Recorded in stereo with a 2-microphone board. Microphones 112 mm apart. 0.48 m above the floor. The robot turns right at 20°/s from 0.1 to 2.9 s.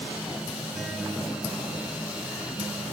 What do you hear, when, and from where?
0.7 s a guitar: straight ahead, 2 m; by 2.8 s 40° left, 2 m